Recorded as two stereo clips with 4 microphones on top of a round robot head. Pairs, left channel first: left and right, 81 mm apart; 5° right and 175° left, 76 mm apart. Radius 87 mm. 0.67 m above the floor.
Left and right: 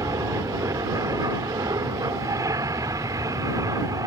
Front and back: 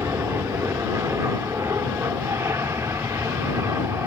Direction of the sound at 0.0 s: 125° right.